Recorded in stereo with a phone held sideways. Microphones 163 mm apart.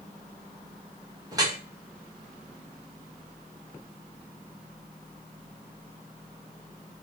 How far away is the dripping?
About 1.2 m.